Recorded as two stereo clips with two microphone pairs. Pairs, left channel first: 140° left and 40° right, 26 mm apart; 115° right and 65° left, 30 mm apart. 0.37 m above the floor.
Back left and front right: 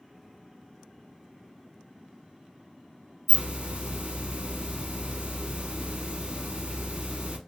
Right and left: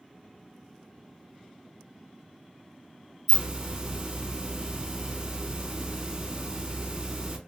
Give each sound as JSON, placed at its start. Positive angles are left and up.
{"t": 3.3, "sound": "a hiss", "azimuth_deg": 0, "distance_m": 0.9}